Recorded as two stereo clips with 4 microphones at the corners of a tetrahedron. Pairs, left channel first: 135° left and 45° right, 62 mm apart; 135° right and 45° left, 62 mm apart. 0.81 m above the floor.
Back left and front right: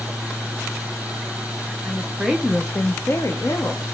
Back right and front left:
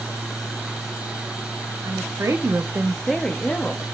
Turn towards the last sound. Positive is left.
turn(degrees=160)